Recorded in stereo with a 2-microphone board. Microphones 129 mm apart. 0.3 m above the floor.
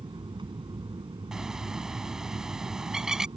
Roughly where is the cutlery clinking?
No cutlery clinking in this recording.